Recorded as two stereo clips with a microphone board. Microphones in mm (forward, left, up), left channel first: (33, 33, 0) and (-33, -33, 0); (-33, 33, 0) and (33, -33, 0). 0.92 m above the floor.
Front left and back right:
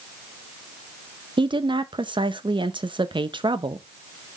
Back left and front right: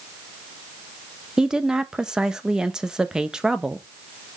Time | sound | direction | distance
1.4 | a woman speaking | 125° right | 0.6 m